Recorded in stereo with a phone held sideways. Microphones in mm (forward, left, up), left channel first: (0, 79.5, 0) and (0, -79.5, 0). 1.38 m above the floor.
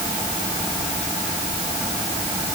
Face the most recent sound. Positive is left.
No sound to turn to.